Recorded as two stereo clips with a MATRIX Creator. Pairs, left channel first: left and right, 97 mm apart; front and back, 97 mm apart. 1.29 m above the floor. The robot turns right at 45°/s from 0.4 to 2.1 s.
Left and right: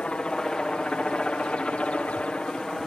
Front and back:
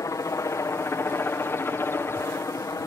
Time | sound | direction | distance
0.0 | a helicopter | 20° left | ?